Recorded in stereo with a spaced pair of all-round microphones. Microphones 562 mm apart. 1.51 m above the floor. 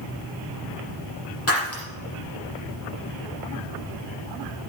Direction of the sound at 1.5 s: 25° left (ahead or behind).